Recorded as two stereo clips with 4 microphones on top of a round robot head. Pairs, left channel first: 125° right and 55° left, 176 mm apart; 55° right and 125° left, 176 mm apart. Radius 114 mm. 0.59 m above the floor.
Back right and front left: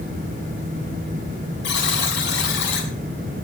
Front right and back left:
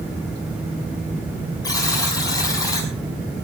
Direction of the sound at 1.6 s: 125° right.